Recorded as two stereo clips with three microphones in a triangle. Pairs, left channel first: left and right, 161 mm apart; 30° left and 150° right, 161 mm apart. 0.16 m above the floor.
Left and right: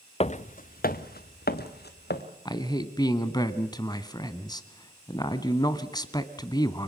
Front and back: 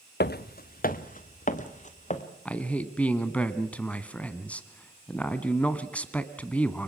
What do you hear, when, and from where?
0.2 s footsteps: 40° left, 0.6 m; by 2.2 s 75° left, 2.0 m
2.5 s a man speaking: 100° left, 1.1 m